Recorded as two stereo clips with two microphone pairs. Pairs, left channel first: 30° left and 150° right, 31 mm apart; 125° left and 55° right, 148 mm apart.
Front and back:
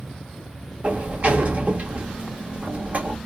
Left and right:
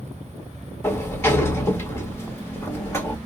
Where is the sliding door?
170° right, 1.4 m.